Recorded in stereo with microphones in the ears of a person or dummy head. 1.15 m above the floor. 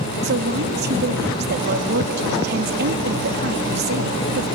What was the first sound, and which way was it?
A woman speaking, 50° right (ahead or behind).